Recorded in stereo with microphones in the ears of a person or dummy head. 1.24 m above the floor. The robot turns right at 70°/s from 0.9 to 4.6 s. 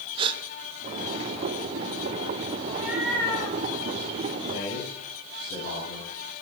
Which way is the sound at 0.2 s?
25° right (ahead or behind).